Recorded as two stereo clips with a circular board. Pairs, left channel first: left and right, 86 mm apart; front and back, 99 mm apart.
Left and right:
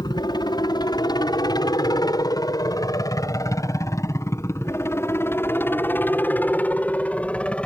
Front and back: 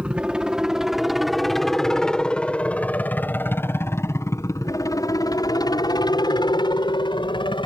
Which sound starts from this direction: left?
A helicopter, at 0.0 s.